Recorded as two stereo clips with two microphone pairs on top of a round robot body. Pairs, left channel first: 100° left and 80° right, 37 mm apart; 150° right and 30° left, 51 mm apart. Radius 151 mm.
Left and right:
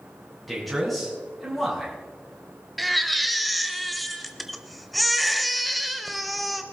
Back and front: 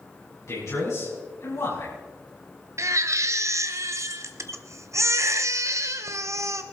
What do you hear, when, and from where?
0.5 s a man speaking: 175° right, 5.5 m
2.8 s a baby crying: 15° left, 0.9 m